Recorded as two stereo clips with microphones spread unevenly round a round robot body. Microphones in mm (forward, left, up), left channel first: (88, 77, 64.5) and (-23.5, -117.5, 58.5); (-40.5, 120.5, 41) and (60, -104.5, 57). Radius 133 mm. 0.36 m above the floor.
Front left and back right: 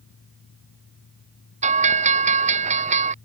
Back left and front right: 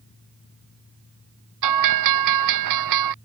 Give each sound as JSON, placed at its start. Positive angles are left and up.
{"t": 1.6, "sound": "a bell", "azimuth_deg": -60}